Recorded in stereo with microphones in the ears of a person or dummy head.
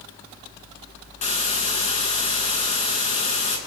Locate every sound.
1.2 s a hiss: 45° left (ahead or behind), 9 m